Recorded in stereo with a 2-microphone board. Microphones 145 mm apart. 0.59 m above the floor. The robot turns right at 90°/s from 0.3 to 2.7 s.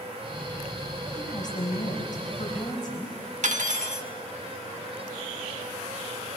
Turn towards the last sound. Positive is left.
turn(degrees=-65)  # may be behind; listen again after turning